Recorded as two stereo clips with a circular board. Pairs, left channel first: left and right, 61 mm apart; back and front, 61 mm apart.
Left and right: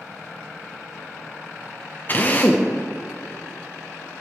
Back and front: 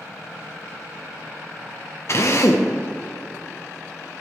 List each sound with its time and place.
2.1 s a drill: 145° left, 1.0 m